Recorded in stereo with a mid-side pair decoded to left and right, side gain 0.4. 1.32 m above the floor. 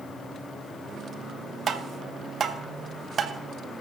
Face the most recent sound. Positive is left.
turn(degrees=-50)